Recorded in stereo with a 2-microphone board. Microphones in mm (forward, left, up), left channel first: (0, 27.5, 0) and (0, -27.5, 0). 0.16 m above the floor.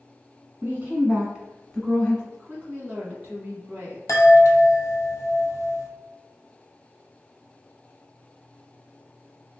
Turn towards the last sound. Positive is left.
turn(degrees=65)  # may be behind; listen again after turning